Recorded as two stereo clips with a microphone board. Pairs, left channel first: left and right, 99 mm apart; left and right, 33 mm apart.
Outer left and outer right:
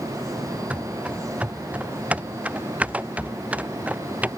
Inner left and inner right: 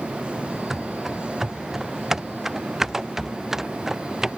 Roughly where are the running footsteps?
Centre.